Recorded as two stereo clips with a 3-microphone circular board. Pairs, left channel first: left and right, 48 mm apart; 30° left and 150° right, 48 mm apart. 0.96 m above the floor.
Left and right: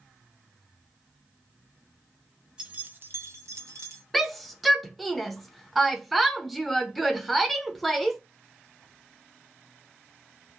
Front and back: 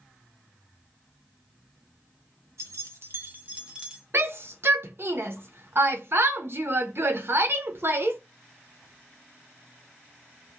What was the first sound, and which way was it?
Keys jangling, 160° right.